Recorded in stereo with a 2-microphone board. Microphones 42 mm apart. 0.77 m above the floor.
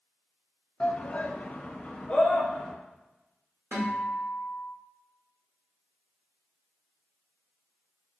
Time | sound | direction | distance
0.8 | a shout | 25° left (ahead or behind) | 0.6 m
3.7 | a guitar | 70° right (ahead or behind) | 2 m